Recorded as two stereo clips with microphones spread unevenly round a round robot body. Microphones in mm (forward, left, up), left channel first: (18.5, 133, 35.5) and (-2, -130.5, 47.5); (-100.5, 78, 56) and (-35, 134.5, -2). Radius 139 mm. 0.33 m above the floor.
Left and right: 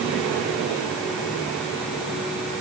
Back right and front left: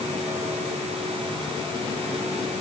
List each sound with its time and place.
Only background noise.